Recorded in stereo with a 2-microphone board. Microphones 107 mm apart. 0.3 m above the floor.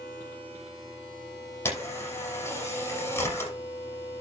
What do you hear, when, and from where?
1.6 s a camera shutter: 25° left (ahead or behind), 7 m